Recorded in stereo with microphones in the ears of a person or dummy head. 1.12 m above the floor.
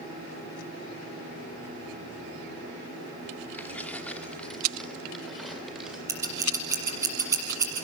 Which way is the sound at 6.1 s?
10° right (ahead or behind).